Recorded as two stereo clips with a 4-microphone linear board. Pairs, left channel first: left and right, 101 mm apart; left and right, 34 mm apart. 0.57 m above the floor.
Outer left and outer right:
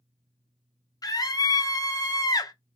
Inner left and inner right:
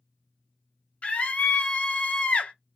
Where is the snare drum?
I don't hear a snare drum.